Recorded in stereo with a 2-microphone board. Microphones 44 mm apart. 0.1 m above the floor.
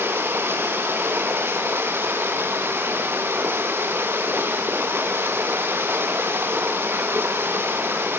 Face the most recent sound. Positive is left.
turn(degrees=-60)  # may be behind; listen again after turning